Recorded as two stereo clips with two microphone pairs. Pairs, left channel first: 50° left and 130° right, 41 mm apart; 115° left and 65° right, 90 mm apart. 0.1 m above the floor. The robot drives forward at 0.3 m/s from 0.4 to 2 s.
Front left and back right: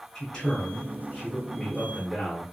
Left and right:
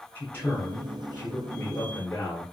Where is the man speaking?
120° left, 1.2 m; by 2.4 s 150° left, 1.3 m.